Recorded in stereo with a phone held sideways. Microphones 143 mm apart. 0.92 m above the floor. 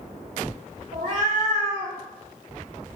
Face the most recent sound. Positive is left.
turn(degrees=-40)  # may be behind; listen again after turning